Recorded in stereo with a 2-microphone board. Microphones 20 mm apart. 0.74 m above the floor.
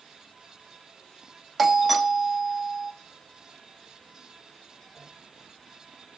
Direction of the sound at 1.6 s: Centre (ahead or behind).